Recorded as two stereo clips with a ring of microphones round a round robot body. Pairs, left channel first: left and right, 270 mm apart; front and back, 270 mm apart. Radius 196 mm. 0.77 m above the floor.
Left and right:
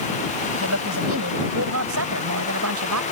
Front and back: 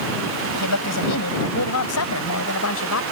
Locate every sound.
0.5 s a woman speaking: 40° right; by 3.0 s 50° right